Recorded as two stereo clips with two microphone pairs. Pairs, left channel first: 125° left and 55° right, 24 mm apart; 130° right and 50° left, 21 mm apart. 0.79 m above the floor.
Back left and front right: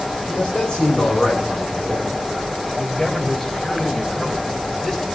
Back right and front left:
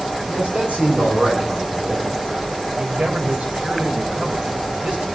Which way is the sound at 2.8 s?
55° left.